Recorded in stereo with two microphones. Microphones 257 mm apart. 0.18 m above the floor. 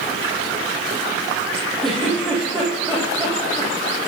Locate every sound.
1.8 s a giggle: centre (ahead or behind), 5.5 m